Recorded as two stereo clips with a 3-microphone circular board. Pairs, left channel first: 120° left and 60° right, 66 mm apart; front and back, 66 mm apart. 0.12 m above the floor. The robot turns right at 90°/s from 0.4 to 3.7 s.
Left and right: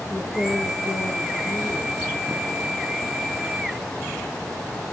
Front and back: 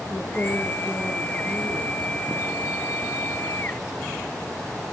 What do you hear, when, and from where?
0.1 s a woman speaking: 60° left, 3 m; by 2.0 s 160° right, 3 m